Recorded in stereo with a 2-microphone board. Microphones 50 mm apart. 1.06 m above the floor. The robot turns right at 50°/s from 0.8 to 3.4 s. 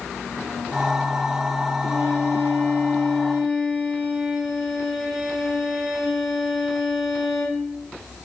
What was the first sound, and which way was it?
A violin, 115° left.